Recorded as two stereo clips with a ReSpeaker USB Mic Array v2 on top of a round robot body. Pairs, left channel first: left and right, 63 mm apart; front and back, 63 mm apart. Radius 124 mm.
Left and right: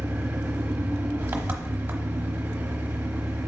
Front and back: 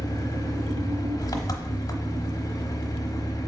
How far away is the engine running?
About 0.9 m.